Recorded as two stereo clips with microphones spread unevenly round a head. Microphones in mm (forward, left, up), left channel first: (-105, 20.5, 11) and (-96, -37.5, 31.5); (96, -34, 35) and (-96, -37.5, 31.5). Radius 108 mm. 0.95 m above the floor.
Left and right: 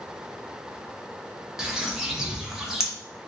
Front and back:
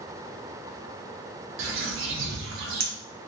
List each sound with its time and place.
1.6 s a bird: 170° right, 0.8 m